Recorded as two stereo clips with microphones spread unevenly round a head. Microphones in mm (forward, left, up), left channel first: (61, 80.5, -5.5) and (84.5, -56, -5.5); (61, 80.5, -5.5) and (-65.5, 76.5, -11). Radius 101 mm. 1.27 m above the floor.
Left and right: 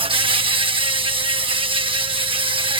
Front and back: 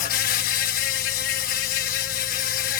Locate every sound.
0.0 s an insect: 25° right